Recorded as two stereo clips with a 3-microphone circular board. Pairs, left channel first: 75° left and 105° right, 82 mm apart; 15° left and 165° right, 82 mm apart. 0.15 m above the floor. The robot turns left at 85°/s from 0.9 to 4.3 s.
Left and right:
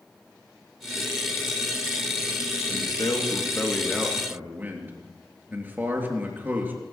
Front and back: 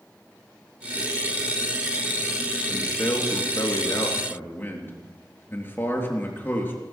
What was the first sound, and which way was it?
A man speaking, 95° left.